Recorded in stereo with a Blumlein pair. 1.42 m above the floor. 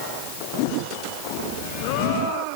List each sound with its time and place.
Only background noise.